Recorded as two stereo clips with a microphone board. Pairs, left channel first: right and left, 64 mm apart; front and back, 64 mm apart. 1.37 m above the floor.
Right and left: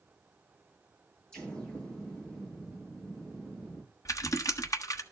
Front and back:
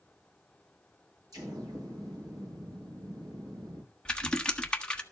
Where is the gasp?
No gasp in this recording.